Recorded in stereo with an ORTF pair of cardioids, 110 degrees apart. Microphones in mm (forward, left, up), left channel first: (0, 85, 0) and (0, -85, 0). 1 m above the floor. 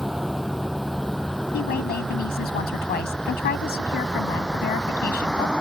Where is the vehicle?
Straight ahead; by 5.6 s 5° left.